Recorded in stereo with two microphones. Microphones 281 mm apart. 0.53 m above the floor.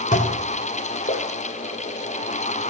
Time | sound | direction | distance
0.1 | dishes clattering | 25° left (ahead or behind) | 0.7 m